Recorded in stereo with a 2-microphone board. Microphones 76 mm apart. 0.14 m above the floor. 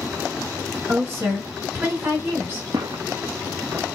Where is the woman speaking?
35° right (ahead or behind), 1.8 m.